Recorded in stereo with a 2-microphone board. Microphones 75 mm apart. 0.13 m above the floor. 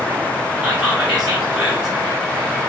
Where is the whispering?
10° right (ahead or behind), 1.4 m.